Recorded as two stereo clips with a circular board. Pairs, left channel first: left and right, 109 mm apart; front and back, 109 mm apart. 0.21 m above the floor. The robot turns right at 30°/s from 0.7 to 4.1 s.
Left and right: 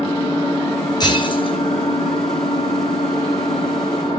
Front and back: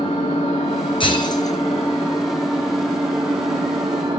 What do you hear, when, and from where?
0.0 s an engine running: 35° left, 6 m; by 4.2 s 135° left, 6 m
1.0 s breaking glass: 40° left, 3 m; by 1.6 s 55° left, 3 m